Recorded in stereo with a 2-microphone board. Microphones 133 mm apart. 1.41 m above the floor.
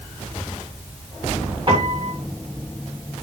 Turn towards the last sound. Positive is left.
turn(degrees=-40)  # may be behind; listen again after turning